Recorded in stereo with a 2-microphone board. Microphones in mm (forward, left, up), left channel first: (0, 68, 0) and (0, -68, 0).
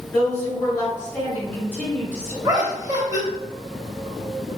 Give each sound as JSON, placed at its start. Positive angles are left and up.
{"t": 0.1, "sound": "a woman speaking", "side_deg": 15, "distance_m": 2.0}
{"t": 2.4, "sound": "laughter", "side_deg": -25, "distance_m": 0.9}